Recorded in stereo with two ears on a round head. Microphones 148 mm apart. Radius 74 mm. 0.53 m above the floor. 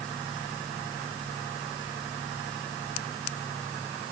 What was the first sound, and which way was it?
Only background noise.